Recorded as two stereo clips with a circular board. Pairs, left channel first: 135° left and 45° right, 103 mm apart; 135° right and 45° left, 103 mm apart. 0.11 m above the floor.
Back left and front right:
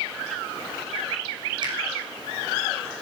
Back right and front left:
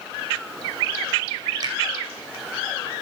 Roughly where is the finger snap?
Ahead.